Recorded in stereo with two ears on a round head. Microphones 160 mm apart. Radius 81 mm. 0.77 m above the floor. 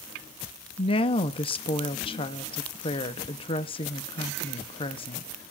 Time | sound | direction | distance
0.8 | a woman speaking | 30° left (ahead or behind) | 0.8 m